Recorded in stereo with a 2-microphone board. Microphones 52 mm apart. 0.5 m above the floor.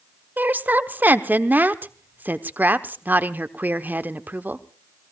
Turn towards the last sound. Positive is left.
turn(degrees=-35)  # may be behind; listen again after turning